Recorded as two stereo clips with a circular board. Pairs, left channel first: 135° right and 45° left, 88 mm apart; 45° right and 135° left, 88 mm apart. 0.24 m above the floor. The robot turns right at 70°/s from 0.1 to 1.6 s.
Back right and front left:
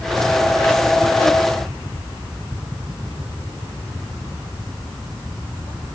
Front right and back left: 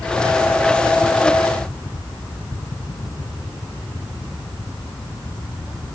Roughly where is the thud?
No thud in this recording.